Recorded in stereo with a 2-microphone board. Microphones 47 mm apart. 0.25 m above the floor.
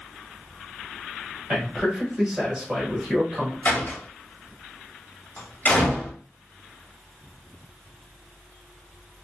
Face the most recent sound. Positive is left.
turn(degrees=45)  # may be behind; listen again after turning